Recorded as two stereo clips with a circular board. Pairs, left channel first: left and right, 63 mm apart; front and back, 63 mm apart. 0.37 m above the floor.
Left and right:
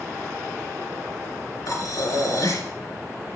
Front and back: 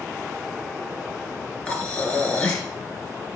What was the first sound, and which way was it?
Breathing, 70° left.